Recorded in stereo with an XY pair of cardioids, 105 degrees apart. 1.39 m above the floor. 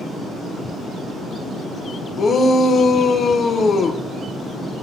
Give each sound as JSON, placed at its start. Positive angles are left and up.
{"t": 2.2, "sound": "a shout", "azimuth_deg": 45, "distance_m": 0.9}